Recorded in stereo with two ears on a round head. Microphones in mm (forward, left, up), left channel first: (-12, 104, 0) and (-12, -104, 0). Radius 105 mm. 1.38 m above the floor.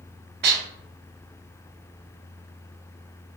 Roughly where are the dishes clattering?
Right.